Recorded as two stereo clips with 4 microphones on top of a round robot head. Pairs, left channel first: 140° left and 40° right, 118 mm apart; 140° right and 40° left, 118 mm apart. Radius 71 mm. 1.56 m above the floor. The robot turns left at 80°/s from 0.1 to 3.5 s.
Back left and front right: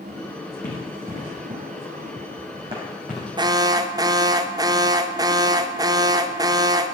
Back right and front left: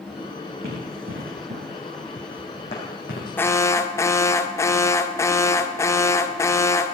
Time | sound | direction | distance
0.6 | running footsteps | 85° left | 5 m
3.4 | an alarm | 70° right | 0.8 m